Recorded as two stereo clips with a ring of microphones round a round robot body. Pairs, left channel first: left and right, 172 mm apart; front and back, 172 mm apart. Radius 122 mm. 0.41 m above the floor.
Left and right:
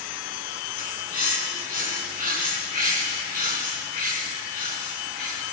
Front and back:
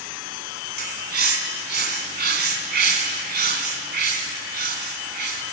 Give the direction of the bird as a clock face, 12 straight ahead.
7 o'clock.